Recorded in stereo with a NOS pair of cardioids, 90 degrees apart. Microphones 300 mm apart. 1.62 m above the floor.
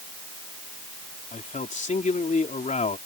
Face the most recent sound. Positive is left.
turn(degrees=25)